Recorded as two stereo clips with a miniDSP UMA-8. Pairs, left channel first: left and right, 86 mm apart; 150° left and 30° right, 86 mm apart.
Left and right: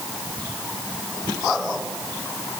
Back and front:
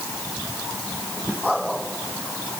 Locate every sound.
Only background noise.